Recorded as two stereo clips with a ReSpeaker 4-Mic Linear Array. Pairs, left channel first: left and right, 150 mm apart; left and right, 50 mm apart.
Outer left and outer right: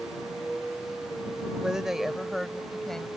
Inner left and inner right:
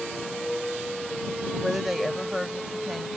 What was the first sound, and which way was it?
A woman speaking, 5° right (ahead or behind).